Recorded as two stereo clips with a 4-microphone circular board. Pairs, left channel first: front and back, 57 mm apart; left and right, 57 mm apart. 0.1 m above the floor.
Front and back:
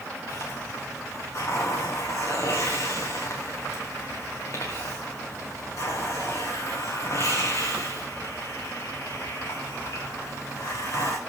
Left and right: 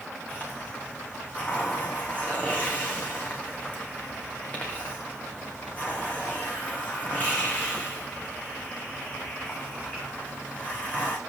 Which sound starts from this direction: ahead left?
A hiss, at 0.3 s.